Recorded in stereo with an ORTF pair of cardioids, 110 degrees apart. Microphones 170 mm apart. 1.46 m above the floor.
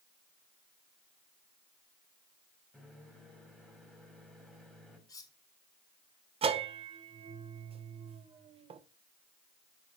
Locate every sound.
2.7 s a microwave: straight ahead, 3.5 m
5.1 s cutlery clinking: 20° left, 1.6 m
6.4 s a bell: 35° right, 1.0 m